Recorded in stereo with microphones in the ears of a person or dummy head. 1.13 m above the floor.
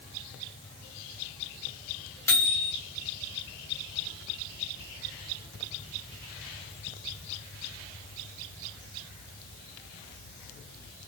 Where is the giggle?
No giggle in this recording.